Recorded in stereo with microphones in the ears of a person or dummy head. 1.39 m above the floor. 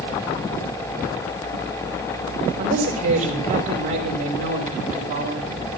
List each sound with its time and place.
2.6 s a woman speaking: 45° right (ahead or behind), 5 m